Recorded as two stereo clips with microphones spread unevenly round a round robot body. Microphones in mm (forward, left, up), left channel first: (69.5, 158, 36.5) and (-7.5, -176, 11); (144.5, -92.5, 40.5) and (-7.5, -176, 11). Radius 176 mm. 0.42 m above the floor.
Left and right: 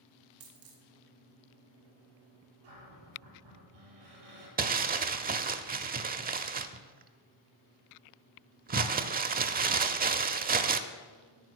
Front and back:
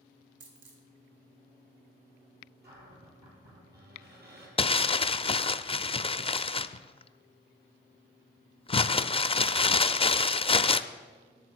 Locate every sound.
0.4 s a dropped coin: 155° right, 1.7 m
2.6 s a cupboard door: 125° right, 5 m
4.6 s crumpling: 40° right, 0.6 m